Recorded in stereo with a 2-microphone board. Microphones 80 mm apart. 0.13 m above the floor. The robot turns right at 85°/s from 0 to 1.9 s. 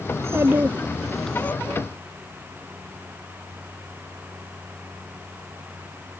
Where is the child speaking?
85° right; by 1.5 s 35° left.